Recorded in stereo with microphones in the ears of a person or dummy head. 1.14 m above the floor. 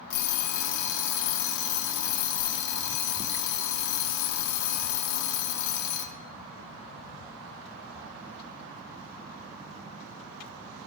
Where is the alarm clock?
65° left (ahead or behind), 1.1 m.